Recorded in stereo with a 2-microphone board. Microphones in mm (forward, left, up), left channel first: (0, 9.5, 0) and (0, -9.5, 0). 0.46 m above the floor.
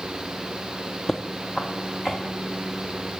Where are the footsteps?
15° left (ahead or behind), 0.8 m; by 2.2 s 35° left (ahead or behind), 2.5 m.